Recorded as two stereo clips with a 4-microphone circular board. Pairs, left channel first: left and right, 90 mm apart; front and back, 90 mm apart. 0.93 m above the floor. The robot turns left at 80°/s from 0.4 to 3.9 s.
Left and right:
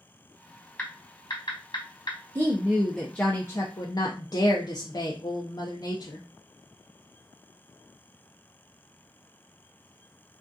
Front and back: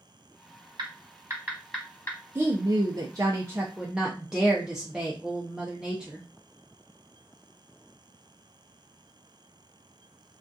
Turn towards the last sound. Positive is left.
turn(degrees=100)